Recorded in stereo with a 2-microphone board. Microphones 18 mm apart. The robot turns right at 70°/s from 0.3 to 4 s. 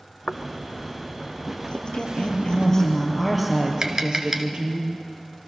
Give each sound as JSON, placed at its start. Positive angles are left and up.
{"t": 0.3, "sound": "footsteps", "side_deg": 75, "distance_m": 1.2}
{"t": 1.7, "sound": "a woman speaking", "azimuth_deg": 70, "distance_m": 4.5}
{"t": 3.8, "sound": "tapping", "side_deg": -40, "distance_m": 1.6}